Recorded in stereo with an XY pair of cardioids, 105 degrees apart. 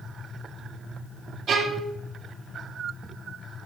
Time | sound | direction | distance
1.5 | a violin | 60° right | 1.9 m